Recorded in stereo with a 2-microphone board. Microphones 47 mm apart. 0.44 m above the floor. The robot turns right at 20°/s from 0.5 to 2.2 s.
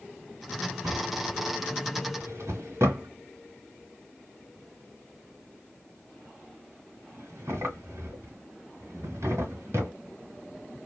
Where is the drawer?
85° right, 1.4 m; by 9.9 s 65° right (ahead or behind), 1.4 m.